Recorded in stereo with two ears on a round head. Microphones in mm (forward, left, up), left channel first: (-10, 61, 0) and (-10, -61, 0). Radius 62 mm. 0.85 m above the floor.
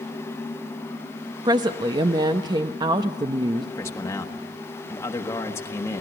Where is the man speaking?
20° left (ahead or behind), 1.3 m.